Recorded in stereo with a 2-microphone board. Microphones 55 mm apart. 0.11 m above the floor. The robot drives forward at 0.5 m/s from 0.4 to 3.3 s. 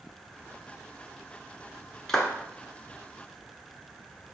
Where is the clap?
10° left (ahead or behind), 0.8 m.